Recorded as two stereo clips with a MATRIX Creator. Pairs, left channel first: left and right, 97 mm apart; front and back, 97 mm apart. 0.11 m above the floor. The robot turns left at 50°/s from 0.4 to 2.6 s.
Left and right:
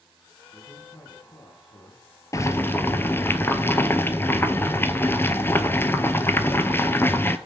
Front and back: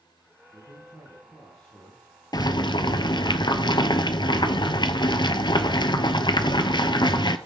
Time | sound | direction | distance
0.5 | a man speaking | 135° left | 3 m
2.3 | boiling | 40° left | 0.7 m